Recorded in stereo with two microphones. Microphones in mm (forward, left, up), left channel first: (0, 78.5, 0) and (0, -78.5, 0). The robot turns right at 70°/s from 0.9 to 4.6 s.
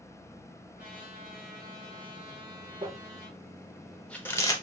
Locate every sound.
0.8 s a trumpet: 115° right, 3 m; by 3.4 s 60° left, 3 m
2.8 s crumpling: 35° right (ahead or behind), 0.8 m; by 4.5 s 25° left (ahead or behind), 0.8 m